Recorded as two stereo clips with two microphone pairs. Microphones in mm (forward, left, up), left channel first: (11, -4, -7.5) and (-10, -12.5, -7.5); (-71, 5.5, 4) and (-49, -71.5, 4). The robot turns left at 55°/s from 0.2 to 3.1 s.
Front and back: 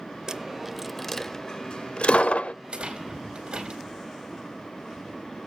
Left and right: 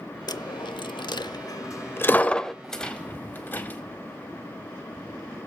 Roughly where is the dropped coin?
Behind left.